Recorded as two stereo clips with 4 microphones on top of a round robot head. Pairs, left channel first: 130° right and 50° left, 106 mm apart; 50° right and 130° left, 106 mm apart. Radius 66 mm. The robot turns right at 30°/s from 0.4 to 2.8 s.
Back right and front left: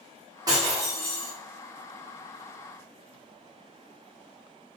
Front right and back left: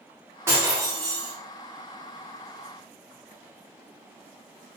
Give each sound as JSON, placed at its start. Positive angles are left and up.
{"t": 0.5, "sound": "breaking glass", "azimuth_deg": 80, "distance_m": 0.9}